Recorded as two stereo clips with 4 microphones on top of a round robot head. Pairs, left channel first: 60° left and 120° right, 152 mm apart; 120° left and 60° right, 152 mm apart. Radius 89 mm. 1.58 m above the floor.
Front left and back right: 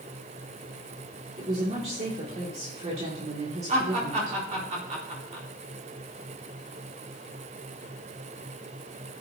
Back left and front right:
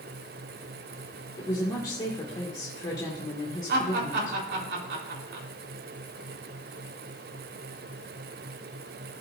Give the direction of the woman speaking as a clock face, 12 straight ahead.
6 o'clock.